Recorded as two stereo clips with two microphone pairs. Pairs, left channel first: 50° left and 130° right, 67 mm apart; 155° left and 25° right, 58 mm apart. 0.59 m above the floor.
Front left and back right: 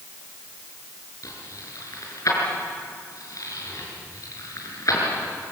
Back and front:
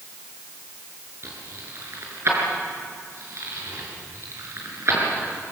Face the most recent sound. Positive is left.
turn(degrees=15)